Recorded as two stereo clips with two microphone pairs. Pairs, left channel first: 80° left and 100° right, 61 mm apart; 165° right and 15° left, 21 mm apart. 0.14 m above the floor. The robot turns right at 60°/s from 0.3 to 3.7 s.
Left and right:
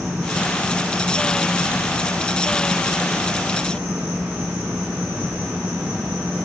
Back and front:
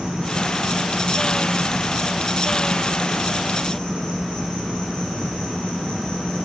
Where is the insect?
5° right, 7 m; by 6.5 s 160° right, 7 m.